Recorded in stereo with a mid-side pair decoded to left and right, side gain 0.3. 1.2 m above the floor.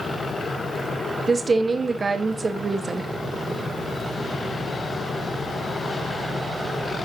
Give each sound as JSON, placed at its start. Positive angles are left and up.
{"t": 1.3, "sound": "a woman speaking", "azimuth_deg": -50, "distance_m": 1.4}